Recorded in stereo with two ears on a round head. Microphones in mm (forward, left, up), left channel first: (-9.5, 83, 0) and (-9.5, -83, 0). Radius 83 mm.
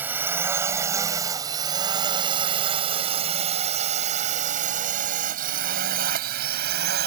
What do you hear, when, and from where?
0.0 s a drone: 10° right (ahead or behind); by 7.1 s 55° right (ahead or behind)